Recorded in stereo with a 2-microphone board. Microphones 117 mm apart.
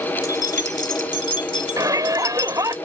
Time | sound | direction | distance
0.2 | keys jangling | 35° left (ahead or behind) | ?
1.8 | a shout | 30° right (ahead or behind) | ?